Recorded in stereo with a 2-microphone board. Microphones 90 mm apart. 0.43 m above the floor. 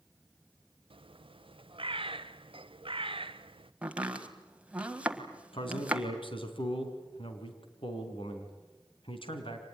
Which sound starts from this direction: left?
A man speaking, at 5.5 s.